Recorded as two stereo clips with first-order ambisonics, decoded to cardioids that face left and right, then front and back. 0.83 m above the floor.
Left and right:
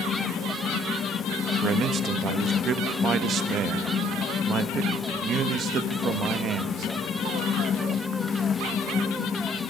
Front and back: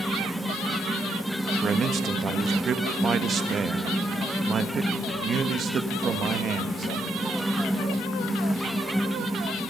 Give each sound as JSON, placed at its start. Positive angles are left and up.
{"t": 1.6, "sound": "a man speaking", "azimuth_deg": -130, "distance_m": 1.2}